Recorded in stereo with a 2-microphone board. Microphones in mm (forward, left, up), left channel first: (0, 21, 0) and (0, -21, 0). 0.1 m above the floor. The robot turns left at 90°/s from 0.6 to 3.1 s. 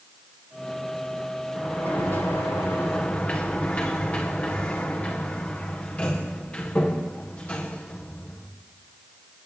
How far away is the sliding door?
About 4.5 m.